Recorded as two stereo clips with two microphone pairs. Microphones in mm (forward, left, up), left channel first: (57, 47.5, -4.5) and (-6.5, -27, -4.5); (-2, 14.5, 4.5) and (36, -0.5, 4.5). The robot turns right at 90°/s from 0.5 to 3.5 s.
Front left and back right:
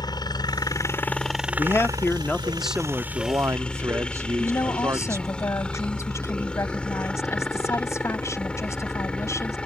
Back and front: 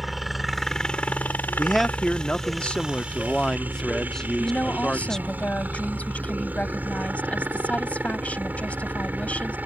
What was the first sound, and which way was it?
A helicopter, 65° left.